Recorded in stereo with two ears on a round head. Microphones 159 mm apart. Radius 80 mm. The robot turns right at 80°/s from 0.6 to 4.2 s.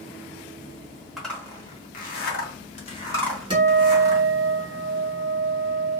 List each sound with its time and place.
1.2 s a zipper: centre (ahead or behind), 0.9 m; by 4.2 s 50° right (ahead or behind), 0.9 m
3.5 s a guitar: 150° right, 1.8 m; by 6.0 s 95° right, 1.8 m